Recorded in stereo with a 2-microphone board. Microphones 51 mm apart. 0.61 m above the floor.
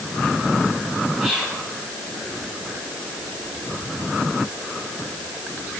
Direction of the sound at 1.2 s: Centre (ahead or behind).